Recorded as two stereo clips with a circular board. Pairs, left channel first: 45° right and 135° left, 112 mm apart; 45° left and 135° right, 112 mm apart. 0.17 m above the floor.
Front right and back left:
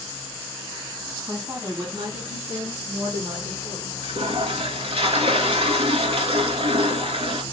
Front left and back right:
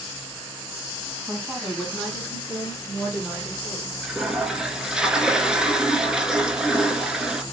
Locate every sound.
1.3 s a woman speaking: 150° left, 1.0 m; by 3.9 s 125° left, 3 m
4.0 s a toilet flushing: 145° left, 0.6 m